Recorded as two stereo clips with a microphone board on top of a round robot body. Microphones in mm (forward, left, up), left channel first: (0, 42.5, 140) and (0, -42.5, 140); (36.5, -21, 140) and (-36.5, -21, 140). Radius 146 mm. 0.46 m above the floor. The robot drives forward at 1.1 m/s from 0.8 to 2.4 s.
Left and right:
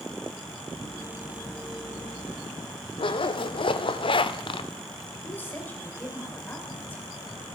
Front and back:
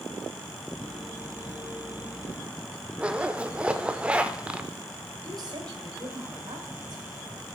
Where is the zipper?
105° left, 0.6 m.